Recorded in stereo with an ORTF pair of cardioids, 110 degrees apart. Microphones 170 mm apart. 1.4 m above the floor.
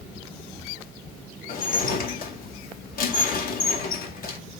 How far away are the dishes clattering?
About 1.9 m.